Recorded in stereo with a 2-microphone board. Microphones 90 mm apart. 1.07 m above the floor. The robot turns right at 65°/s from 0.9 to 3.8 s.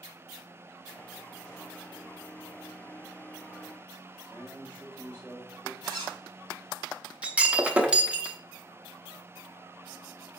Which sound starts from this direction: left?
A man speaking, at 4.2 s.